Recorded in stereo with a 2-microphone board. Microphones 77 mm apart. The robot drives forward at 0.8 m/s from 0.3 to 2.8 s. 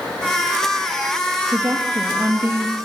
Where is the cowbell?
I don't hear a cowbell.